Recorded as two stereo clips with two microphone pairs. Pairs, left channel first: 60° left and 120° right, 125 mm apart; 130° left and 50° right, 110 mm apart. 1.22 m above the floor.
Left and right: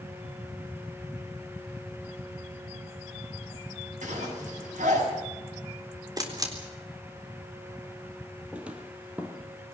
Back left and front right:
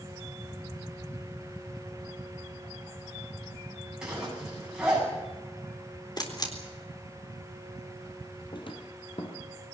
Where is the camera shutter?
Straight behind, 4 m.